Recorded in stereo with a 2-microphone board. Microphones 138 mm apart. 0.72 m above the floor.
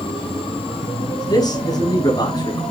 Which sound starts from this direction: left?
A man speaking, at 1.3 s.